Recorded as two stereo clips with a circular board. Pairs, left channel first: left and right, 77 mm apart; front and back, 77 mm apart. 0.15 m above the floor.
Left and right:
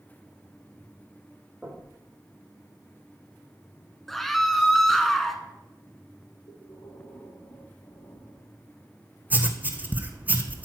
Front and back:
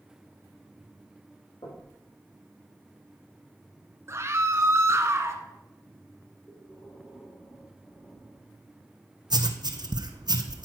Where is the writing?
160° right, 1.5 m.